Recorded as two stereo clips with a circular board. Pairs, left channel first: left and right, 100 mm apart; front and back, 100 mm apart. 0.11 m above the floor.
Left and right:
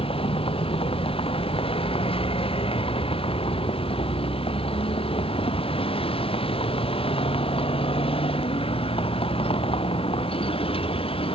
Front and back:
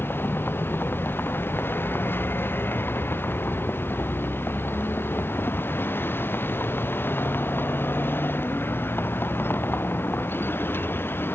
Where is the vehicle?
70° left.